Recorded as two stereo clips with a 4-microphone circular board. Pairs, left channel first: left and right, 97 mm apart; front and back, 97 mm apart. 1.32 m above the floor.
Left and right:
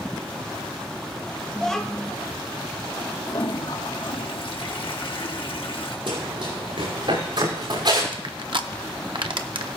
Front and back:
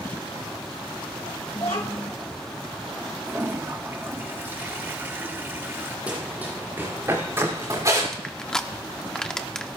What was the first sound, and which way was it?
A child speaking, 5° left.